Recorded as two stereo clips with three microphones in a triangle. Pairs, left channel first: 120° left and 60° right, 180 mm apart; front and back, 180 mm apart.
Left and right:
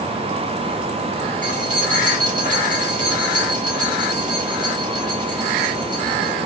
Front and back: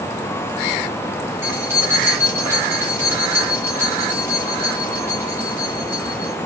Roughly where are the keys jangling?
Right.